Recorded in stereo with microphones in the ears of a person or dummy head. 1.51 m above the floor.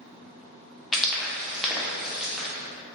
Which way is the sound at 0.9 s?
5° right (ahead or behind).